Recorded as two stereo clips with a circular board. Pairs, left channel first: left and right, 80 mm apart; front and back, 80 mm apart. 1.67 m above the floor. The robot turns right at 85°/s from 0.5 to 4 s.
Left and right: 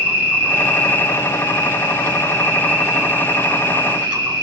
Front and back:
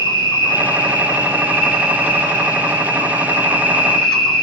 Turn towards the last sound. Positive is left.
turn(degrees=-80)